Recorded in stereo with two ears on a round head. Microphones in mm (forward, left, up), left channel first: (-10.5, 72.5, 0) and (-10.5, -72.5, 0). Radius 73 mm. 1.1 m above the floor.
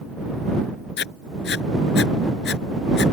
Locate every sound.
1.0 s writing: 70° left (ahead or behind)